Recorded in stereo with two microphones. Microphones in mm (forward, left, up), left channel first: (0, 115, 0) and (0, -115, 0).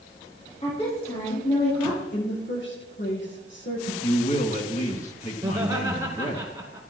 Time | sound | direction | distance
0.6 | a woman speaking | 25° left (ahead or behind) | 6.5 m
2.1 | a woman speaking | 55° left (ahead or behind) | 6 m
4.0 | a man speaking | 30° left (ahead or behind) | 1.8 m
5.4 | laughter | 15° right (ahead or behind) | 2 m